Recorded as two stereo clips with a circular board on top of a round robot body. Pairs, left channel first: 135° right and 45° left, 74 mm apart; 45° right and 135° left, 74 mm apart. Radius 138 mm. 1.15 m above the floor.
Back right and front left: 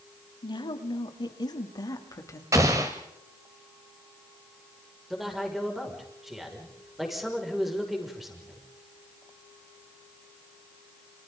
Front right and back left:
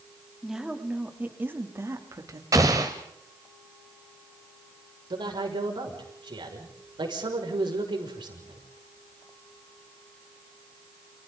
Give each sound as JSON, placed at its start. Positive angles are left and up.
{"t": 0.4, "sound": "a woman speaking", "azimuth_deg": -140, "distance_m": 3.5}
{"t": 2.5, "sound": "an explosion", "azimuth_deg": 90, "distance_m": 1.1}
{"t": 5.1, "sound": "a man speaking", "azimuth_deg": 135, "distance_m": 6.0}